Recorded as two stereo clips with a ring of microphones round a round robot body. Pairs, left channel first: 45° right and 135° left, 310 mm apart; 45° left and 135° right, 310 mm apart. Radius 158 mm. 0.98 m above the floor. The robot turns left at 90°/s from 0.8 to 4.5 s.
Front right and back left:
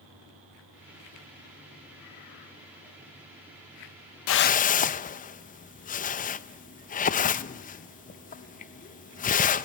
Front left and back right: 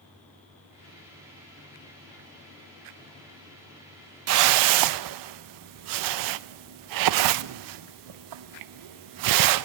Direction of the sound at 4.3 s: 90° right.